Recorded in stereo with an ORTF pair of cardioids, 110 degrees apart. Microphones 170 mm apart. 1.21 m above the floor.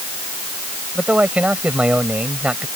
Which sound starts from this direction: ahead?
A man speaking, at 0.9 s.